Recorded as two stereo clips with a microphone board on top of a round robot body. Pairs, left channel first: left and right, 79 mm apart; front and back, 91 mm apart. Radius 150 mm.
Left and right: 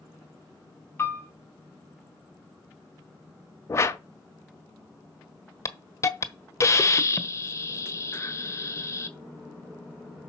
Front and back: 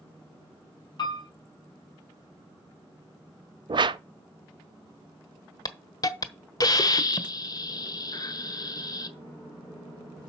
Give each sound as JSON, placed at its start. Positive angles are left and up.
{"t": 1.0, "sound": "a piano", "azimuth_deg": 30, "distance_m": 5.0}
{"t": 3.7, "sound": "a whoosh", "azimuth_deg": 145, "distance_m": 0.6}
{"t": 5.7, "sound": "a hiss", "azimuth_deg": 40, "distance_m": 1.3}